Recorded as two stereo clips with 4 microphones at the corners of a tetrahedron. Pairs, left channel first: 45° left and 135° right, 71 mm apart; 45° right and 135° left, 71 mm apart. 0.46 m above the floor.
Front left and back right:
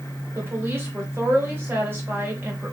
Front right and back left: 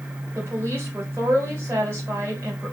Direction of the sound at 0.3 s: Straight behind.